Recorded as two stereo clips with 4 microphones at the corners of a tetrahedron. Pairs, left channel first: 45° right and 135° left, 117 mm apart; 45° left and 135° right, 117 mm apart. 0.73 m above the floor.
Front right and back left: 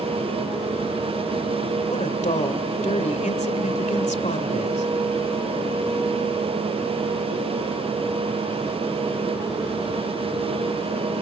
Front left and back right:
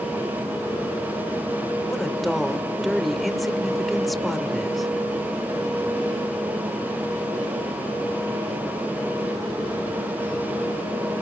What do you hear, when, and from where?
1.9 s a woman speaking: 45° right, 2 m